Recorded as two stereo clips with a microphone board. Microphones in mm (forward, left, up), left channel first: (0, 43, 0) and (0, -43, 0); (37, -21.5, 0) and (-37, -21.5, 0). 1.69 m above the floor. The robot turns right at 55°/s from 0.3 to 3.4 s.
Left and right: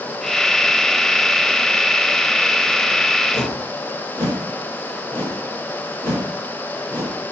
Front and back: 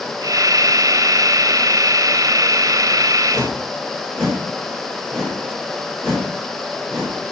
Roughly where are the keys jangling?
I don't hear keys jangling.